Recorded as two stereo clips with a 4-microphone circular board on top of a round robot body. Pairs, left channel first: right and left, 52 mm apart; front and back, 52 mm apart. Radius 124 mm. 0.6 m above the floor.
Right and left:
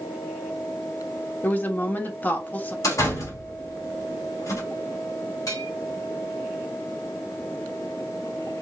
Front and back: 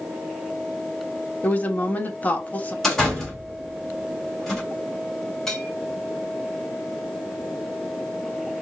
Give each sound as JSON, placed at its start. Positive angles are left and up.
{"t": 1.4, "sound": "a woman speaking", "azimuth_deg": -50, "distance_m": 1.3}
{"t": 2.8, "sound": "a door slam", "azimuth_deg": -85, "distance_m": 3.0}
{"t": 5.5, "sound": "a bell", "azimuth_deg": -80, "distance_m": 1.6}